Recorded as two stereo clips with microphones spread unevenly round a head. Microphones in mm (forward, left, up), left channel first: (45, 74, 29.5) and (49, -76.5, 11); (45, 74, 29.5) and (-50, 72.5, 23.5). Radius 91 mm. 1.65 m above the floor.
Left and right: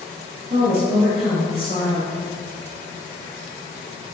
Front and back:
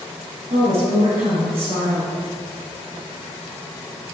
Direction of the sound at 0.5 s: 145° right.